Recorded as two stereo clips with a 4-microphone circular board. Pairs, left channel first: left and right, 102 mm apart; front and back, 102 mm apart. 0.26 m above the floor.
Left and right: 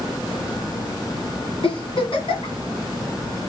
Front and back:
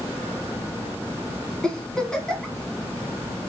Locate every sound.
1.6 s a giggle: 85° left, 2 m